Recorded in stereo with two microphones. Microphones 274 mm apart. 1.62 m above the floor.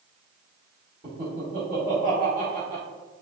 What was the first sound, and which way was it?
Laughter, 30° right (ahead or behind).